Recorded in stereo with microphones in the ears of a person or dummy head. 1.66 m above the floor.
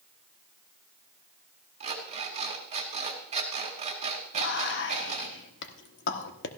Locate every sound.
1.8 s an alarm clock: 40° right (ahead or behind), 2.5 m
4.3 s whispering: 65° left (ahead or behind), 1.3 m